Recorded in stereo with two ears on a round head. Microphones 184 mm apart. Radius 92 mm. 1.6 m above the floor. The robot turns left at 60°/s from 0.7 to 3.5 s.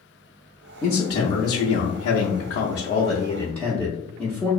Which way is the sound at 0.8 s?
170° left.